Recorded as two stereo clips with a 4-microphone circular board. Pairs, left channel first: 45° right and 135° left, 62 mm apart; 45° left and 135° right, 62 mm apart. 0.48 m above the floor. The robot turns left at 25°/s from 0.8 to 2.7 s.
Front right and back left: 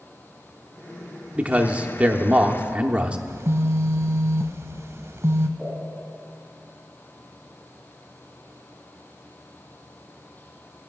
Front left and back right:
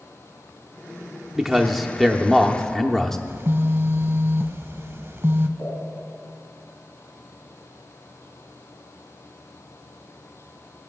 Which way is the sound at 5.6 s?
60° left.